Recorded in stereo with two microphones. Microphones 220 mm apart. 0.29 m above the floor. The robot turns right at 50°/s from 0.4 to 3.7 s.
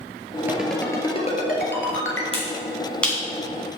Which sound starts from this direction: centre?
A ringtone, at 0.5 s.